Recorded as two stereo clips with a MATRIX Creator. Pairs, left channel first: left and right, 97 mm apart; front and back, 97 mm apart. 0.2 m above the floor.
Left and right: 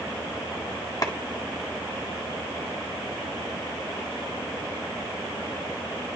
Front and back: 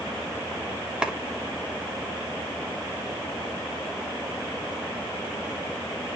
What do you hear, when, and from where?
1.0 s a clap: 105° left, 1.5 m